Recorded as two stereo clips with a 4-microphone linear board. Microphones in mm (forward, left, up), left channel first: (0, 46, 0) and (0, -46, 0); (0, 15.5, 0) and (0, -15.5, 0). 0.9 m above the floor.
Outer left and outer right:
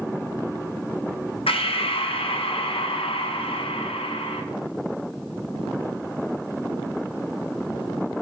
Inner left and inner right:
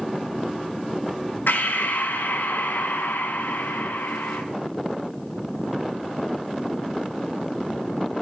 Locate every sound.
1.5 s breathing: 85° left, 0.6 m